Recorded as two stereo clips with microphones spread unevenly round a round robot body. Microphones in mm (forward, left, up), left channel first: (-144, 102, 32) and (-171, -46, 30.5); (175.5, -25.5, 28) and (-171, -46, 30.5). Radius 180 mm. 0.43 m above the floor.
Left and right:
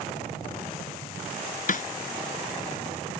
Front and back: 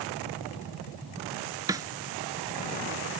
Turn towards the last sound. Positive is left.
turn(degrees=105)